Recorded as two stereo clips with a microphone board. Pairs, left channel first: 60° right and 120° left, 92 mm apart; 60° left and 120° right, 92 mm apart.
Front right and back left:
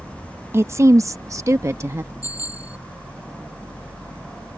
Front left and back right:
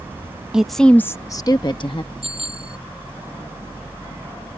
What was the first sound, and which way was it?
A woman speaking, 165° left.